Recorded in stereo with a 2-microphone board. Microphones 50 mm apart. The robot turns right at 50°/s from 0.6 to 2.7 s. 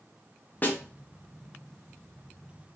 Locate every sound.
0.6 s a snare drum: 35° left (ahead or behind), 1.1 m; by 0.8 s 40° left (ahead or behind), 1.1 m